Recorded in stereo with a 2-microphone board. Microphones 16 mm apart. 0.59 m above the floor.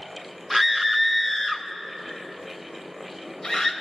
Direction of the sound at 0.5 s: 5° left (ahead or behind).